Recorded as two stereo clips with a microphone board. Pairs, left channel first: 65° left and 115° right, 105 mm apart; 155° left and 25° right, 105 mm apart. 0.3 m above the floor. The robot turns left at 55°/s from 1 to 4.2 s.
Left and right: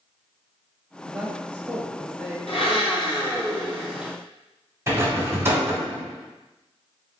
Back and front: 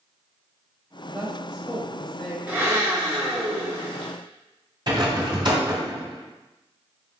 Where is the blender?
55° left, 1.5 m; by 4.1 s 35° right, 1.5 m.